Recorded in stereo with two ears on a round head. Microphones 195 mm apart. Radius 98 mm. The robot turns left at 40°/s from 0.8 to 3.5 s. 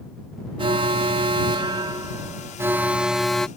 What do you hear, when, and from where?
0.6 s an alarm: 25° right (ahead or behind); by 3.5 s centre (ahead or behind)